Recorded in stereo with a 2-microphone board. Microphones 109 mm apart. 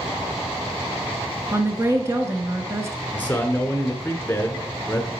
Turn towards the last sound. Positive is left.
turn(degrees=15)  # may be behind; listen again after turning